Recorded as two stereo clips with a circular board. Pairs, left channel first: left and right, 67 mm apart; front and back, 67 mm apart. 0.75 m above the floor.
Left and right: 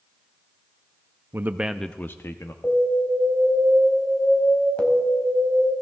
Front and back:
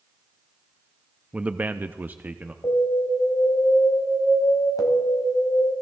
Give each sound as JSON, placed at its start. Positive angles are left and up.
{"t": 1.3, "sound": "a man speaking", "azimuth_deg": -115, "distance_m": 0.6}
{"t": 2.6, "sound": "an alarm", "azimuth_deg": 20, "distance_m": 3.0}